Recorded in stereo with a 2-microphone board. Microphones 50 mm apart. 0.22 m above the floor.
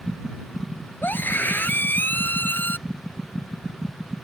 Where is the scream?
40° left (ahead or behind).